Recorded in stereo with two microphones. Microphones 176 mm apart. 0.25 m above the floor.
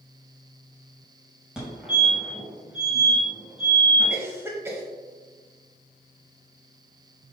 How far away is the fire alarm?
About 2 m.